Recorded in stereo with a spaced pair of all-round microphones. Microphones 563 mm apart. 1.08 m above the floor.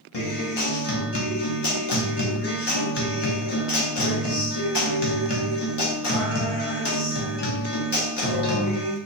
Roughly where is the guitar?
Left.